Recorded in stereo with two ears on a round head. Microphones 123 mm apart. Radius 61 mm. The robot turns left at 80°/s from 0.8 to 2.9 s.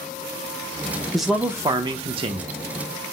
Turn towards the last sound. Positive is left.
turn(degrees=-140)